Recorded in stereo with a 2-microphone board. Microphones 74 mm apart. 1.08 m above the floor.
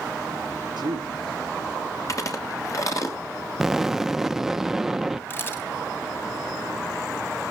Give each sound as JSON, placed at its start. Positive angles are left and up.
{"t": 0.8, "sound": "a man speaking", "side_deg": -75, "distance_m": 2.5}
{"t": 2.1, "sound": "chewing", "side_deg": 45, "distance_m": 2.5}
{"t": 3.6, "sound": "an explosion", "side_deg": -5, "distance_m": 0.6}
{"t": 5.3, "sound": "a camera shutter", "side_deg": 30, "distance_m": 2.5}